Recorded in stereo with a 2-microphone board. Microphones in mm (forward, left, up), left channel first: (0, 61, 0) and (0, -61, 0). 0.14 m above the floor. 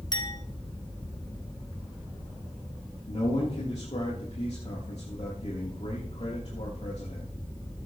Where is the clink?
40° left (ahead or behind), 1.5 m.